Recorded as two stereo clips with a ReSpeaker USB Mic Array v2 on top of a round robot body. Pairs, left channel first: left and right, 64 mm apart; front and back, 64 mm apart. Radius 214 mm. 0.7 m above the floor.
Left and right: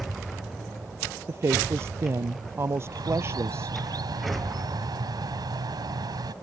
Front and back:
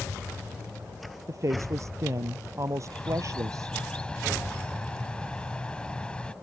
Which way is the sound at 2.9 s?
75° right.